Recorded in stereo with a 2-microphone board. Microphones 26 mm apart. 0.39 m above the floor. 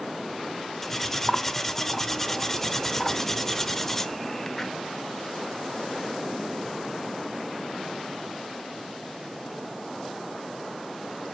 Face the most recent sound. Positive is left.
turn(degrees=10)  # may be behind; listen again after turning